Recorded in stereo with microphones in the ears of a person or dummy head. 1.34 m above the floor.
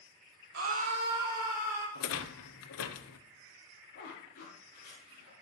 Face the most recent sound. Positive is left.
turn(degrees=65)  # may be behind; listen again after turning